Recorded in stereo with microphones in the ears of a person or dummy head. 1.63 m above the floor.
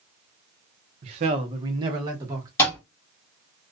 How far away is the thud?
About 1.3 m.